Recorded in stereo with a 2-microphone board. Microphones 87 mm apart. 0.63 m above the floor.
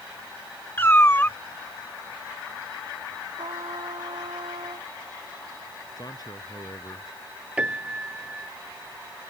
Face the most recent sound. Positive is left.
turn(degrees=-15)  # may be behind; listen again after turning